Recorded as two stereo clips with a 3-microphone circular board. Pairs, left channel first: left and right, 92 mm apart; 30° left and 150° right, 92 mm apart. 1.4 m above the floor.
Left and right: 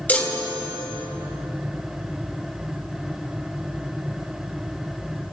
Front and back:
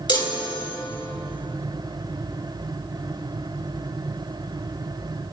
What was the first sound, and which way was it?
A chime, 25° left.